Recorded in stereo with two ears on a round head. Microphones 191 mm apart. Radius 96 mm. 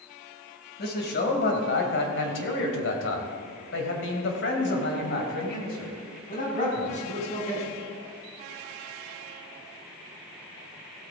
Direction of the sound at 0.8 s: 50° left (ahead or behind).